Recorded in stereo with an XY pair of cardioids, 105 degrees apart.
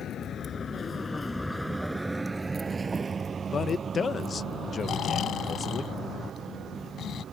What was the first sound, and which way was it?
A vehicle, 60° left.